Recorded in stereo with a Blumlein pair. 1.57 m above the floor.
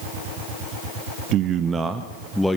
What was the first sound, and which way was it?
A man speaking, 35° right.